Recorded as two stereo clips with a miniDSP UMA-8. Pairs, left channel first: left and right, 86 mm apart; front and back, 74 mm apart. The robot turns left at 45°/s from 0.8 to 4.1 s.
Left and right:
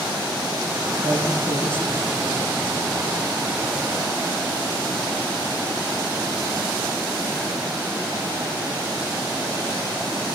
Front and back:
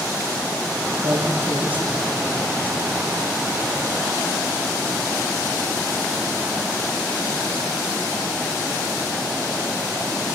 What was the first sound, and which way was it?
A man speaking, 145° left.